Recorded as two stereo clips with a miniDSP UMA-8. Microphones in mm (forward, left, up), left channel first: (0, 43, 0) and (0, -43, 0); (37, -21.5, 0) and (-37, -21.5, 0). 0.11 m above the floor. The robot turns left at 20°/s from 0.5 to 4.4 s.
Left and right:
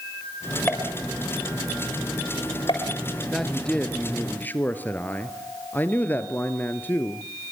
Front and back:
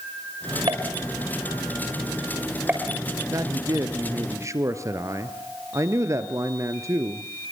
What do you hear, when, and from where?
0.7 s a pop: 155° left, 7 m; by 2.9 s 110° left, 7 m
3.3 s a man speaking: 175° left, 2 m; by 7.2 s 155° left, 2 m